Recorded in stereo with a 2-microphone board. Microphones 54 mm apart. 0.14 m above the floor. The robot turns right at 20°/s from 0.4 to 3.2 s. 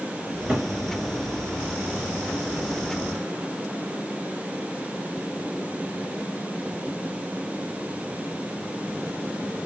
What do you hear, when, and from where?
0.2 s a cupboard door: 30° right (ahead or behind), 1.3 m; by 0.7 s 25° right (ahead or behind), 1.3 m